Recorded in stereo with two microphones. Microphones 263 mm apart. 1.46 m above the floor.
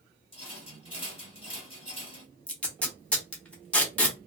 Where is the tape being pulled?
5° left (ahead or behind), 1.0 m.